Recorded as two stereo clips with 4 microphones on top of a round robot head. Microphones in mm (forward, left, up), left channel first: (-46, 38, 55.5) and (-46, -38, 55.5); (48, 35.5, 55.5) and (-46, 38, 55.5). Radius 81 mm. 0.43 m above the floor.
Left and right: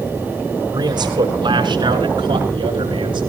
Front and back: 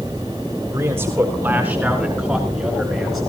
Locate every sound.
0.7 s a man speaking: 115° right, 4.5 m; by 3.3 s 90° right, 5.5 m